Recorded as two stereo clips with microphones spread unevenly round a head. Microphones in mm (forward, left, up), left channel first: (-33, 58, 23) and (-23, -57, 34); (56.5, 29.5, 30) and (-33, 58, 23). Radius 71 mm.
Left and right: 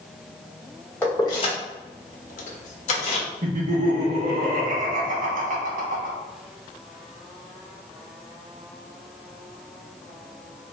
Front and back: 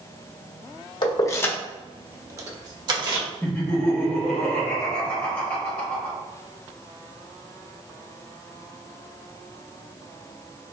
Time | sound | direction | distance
1.0 | keys jangling | 15° left | 0.6 m
3.4 | laughter | 95° right | 1.4 m